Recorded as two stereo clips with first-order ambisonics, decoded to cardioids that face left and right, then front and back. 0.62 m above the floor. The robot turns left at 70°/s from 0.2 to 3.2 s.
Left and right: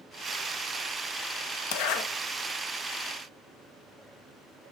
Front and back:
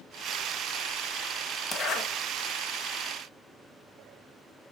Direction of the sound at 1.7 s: 75° left.